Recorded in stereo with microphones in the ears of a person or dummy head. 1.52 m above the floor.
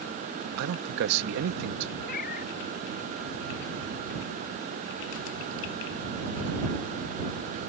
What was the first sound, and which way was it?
A man speaking, 60° right (ahead or behind).